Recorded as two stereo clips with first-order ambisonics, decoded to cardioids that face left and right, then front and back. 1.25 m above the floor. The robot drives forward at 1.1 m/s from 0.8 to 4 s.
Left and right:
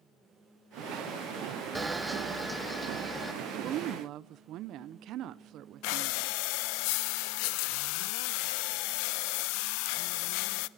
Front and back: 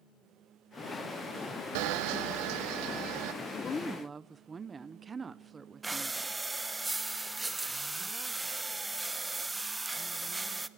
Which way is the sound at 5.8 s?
100° left.